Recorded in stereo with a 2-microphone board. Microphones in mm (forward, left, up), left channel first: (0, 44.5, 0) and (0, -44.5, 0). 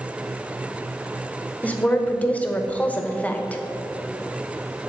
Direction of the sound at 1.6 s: 15° left (ahead or behind).